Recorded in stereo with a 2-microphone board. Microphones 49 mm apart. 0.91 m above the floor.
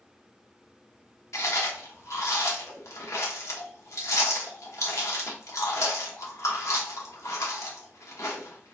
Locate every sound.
1.3 s chewing: 75° left (ahead or behind), 1.1 m